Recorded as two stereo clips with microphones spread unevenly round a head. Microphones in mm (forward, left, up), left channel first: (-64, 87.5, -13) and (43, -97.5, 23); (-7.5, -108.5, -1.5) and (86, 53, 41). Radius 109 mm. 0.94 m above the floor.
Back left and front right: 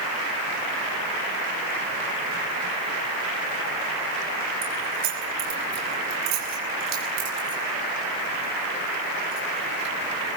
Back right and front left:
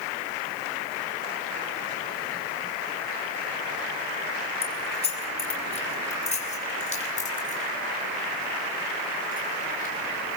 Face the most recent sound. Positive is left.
turn(degrees=-75)